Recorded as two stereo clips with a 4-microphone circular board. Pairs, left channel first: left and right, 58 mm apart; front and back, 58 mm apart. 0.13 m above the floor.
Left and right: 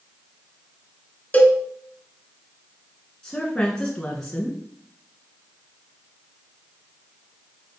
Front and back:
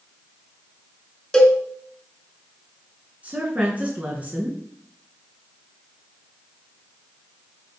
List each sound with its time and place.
1.3 s a cowbell: 70° left, 1.6 m
3.2 s a woman speaking: 150° left, 1.8 m